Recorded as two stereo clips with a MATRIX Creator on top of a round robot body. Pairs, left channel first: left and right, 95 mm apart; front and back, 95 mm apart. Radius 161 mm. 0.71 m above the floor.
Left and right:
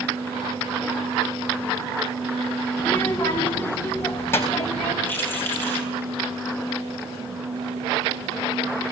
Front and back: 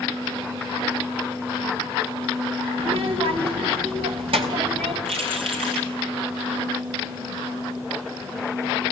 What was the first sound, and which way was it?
A child speaking, 165° left.